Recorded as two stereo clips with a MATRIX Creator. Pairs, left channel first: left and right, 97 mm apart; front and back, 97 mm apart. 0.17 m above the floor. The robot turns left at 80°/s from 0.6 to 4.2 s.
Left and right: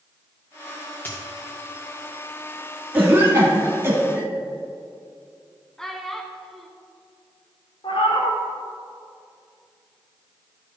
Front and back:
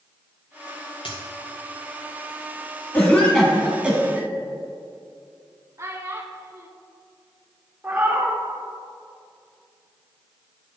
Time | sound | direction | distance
1.1 | a dropped coin | 20° left | 2.0 m
2.9 | a cough | 45° right | 1.2 m
5.8 | a child speaking | 170° left | 0.7 m
7.8 | a cat meowing | 105° left | 2.5 m